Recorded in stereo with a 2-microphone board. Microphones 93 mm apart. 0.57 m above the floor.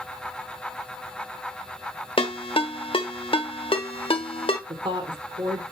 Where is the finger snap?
No finger snap in this recording.